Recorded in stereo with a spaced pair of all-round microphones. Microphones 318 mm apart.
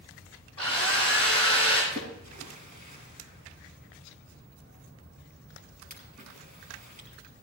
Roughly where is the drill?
Right.